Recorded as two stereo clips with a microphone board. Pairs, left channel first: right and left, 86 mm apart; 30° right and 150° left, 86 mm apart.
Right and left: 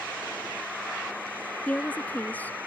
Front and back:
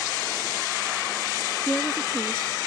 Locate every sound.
1.7 s a woman speaking: 85° right